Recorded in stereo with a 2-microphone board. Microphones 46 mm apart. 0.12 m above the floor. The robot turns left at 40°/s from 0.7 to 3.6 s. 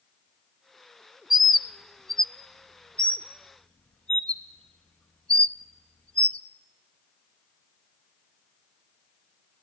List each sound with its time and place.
1.3 s a bird: 5° right (ahead or behind), 0.5 m; by 6.4 s 25° left (ahead or behind), 0.5 m